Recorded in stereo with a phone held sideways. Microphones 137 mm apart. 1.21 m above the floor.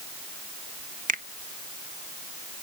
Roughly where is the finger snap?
Right.